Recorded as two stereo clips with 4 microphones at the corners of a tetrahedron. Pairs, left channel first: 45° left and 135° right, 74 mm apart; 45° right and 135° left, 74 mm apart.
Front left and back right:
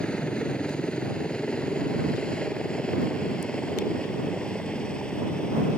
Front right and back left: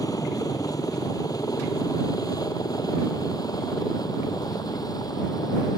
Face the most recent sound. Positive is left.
turn(degrees=-30)